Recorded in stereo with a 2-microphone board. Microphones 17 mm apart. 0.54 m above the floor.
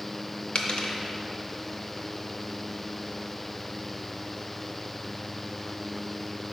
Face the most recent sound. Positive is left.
turn(degrees=80)